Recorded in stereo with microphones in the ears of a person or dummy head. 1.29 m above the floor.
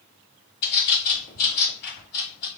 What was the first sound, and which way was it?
A bird, 50° left (ahead or behind).